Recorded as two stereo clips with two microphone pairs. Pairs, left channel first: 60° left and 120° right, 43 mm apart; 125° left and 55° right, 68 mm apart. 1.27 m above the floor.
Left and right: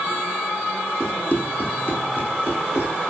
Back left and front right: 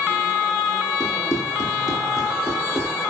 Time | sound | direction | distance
1.0 | running footsteps | 100° left | 3.5 m